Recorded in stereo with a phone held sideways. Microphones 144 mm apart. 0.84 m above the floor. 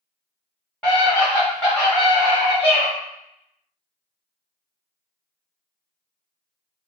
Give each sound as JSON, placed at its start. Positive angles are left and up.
{"t": 0.8, "sound": "a scream", "side_deg": 10, "distance_m": 1.0}